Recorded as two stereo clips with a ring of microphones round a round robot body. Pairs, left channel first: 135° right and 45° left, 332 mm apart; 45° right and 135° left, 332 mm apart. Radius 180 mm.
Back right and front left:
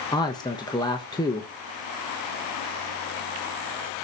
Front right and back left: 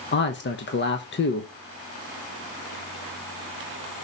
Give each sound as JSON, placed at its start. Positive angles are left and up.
{"t": 0.1, "sound": "a man speaking", "azimuth_deg": -65, "distance_m": 1.2}